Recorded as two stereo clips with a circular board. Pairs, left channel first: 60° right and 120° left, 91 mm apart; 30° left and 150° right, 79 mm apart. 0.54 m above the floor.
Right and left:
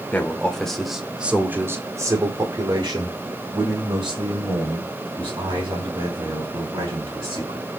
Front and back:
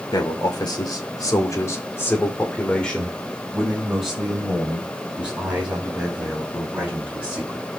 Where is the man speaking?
10° left, 1.8 m; by 7.7 s 140° left, 5.5 m.